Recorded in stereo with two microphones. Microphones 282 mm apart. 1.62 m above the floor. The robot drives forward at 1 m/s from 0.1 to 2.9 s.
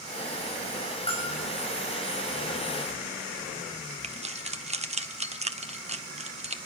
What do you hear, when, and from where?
1.1 s a bell: 20° left (ahead or behind), 4.5 m
4.0 s keys jangling: 25° right (ahead or behind), 0.7 m